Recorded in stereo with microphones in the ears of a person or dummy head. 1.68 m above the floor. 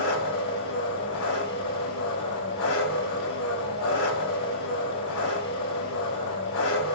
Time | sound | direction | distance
0.0 | an engine running | 75° left (ahead or behind) | 4.5 m